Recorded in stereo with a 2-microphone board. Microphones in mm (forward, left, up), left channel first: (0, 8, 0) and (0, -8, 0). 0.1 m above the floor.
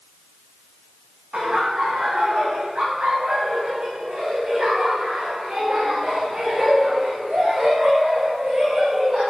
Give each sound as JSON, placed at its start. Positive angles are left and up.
{"t": 1.3, "sound": "laughter", "side_deg": -75, "distance_m": 8.0}